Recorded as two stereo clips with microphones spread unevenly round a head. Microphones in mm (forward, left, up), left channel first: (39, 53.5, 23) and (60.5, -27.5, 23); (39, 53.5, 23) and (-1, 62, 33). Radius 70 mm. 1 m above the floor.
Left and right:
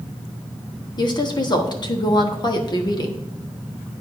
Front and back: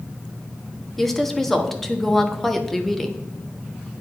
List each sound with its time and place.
1.0 s a woman speaking: 70° left, 1.2 m